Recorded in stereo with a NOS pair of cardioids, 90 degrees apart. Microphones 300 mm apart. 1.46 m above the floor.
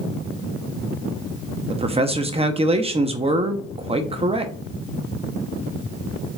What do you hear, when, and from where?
1.7 s a man speaking: 20° right, 0.8 m